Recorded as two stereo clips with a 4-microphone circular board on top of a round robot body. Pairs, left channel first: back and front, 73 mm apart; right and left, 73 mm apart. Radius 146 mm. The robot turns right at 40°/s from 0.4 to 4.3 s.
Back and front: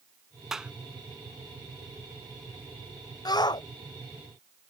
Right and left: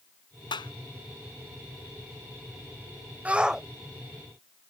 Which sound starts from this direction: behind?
A shout, at 3.2 s.